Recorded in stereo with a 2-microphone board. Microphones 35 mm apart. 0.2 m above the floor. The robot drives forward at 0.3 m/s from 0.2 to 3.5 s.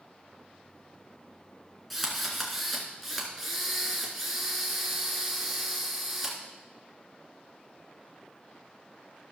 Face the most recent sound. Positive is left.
turn(degrees=0)  # may be behind; listen again after turning